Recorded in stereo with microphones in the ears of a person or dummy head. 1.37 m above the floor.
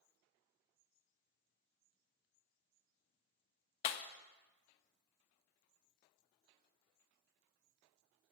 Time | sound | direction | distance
3.8 | breaking glass | 30° left (ahead or behind) | 0.9 m